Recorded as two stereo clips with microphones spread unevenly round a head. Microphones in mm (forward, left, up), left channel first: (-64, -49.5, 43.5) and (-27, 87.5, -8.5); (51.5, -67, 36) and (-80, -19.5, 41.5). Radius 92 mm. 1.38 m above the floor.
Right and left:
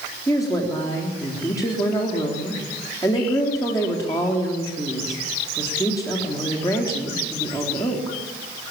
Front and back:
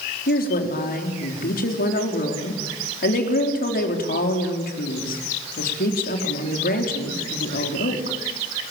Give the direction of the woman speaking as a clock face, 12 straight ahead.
1 o'clock.